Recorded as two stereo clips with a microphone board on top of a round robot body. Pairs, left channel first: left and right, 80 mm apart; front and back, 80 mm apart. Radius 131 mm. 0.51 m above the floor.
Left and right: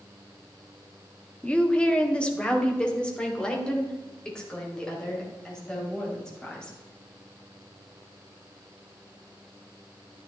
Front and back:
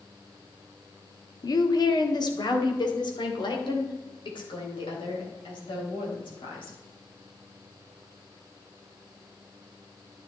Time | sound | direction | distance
1.4 | a woman speaking | 15° left | 1.4 m